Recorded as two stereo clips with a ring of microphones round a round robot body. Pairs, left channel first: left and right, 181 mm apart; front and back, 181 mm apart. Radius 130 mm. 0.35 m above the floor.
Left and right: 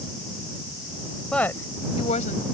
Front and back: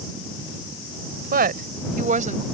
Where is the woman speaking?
175° left; by 2.5 s 135° left.